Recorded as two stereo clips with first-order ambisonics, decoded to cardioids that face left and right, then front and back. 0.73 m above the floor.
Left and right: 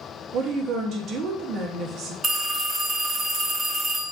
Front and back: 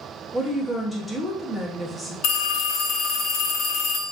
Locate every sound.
0.3 s a woman speaking: 90° right, 0.7 m
2.2 s a phone ringing: 15° right, 0.7 m